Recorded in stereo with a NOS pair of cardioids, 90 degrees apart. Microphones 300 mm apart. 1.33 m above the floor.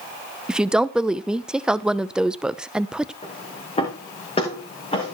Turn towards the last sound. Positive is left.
turn(degrees=20)